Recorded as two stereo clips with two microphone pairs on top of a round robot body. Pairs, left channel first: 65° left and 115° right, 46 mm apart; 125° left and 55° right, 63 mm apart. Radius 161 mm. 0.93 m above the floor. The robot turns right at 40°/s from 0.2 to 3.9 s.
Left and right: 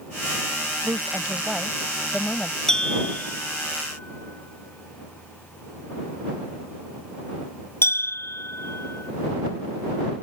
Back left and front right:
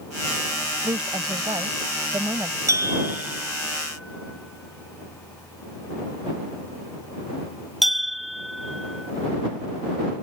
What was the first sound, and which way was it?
A woman speaking, 70° right.